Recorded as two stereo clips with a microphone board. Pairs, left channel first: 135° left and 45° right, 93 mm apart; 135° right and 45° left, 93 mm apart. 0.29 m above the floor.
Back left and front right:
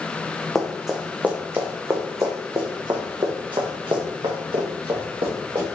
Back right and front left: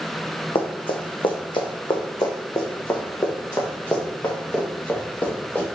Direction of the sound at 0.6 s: 140° right.